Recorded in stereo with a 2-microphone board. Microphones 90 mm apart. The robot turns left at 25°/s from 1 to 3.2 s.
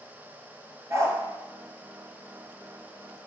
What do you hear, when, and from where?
0.9 s a dog barking: 35° right (ahead or behind), 2 m; by 1.2 s 30° right (ahead or behind), 2 m